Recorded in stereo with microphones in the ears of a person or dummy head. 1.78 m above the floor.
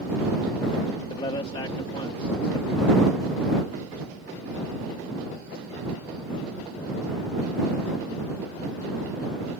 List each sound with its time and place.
1.1 s a man speaking: 30° left (ahead or behind)